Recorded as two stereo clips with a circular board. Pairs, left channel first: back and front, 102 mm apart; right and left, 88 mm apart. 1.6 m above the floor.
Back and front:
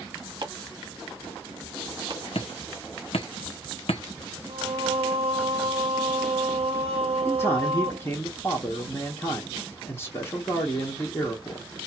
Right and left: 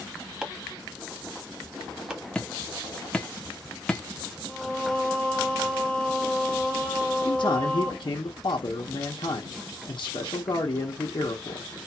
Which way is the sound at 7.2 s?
115° right.